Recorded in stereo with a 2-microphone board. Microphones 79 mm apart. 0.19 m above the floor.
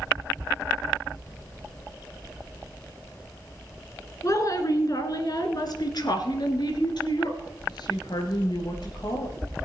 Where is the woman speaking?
45° left (ahead or behind), 1.9 m; by 9.3 s 65° left (ahead or behind), 3.5 m.